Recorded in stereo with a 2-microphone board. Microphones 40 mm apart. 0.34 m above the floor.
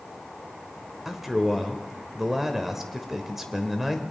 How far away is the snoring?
No snoring in this recording.